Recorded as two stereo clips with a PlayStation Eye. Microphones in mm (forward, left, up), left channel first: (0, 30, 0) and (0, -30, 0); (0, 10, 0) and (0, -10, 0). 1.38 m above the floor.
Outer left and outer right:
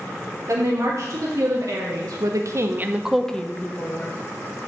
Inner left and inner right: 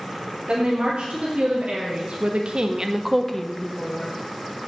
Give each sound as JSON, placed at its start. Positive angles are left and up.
{"t": 0.5, "sound": "a woman speaking", "side_deg": -70, "distance_m": 2.0}